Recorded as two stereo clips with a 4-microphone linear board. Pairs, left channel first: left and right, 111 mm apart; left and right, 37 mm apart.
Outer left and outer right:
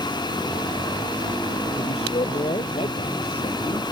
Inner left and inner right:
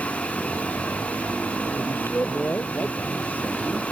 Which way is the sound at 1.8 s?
65° left (ahead or behind).